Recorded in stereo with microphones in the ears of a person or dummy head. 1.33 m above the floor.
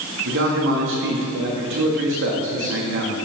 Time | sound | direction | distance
0.2 | a man speaking | 65° right (ahead or behind) | 1.9 m